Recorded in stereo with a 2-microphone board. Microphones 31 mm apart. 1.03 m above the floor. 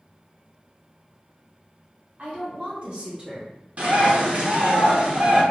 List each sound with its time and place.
2.2 s a woman speaking: 55° right (ahead or behind), 1.6 m; by 3.5 s 25° right (ahead or behind), 1.1 m
3.8 s a bird: 45° right (ahead or behind), 0.8 m